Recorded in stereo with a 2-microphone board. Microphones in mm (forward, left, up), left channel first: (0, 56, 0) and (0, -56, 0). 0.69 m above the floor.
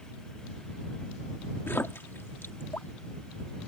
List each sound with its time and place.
1.7 s a splash: 20° left (ahead or behind)